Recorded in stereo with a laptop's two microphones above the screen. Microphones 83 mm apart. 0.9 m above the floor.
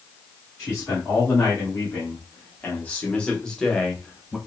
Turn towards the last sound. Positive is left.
turn(degrees=0)  # may be behind; listen again after turning